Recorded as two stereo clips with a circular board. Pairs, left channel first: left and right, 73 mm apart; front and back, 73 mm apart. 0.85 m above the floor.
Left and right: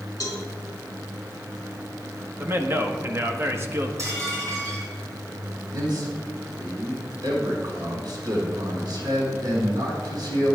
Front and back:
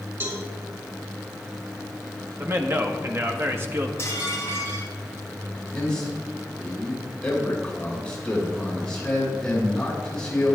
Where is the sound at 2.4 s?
135° right, 1.4 m.